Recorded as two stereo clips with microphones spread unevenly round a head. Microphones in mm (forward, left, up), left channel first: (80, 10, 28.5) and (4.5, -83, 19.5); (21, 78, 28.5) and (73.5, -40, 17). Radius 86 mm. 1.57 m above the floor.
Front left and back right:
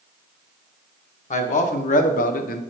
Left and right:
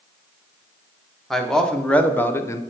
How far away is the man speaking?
About 1.4 m.